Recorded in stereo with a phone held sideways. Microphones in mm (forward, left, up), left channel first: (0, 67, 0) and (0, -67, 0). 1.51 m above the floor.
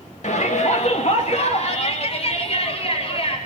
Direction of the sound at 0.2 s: 60° left (ahead or behind).